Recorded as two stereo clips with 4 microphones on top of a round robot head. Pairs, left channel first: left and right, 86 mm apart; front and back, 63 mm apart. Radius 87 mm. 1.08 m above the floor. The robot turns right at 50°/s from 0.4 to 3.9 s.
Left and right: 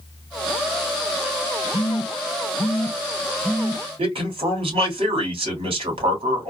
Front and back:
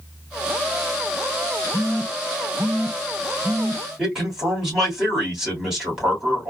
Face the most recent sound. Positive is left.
turn(degrees=-100)